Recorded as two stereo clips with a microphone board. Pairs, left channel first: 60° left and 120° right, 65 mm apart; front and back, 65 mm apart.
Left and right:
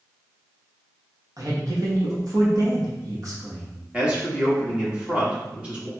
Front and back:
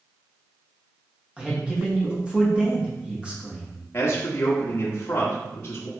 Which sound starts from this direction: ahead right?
A man speaking, at 3.9 s.